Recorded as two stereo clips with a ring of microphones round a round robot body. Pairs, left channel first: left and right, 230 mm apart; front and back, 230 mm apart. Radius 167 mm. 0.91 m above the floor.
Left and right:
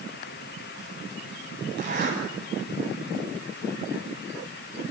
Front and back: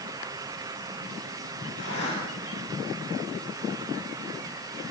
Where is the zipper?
50° right, 9 m.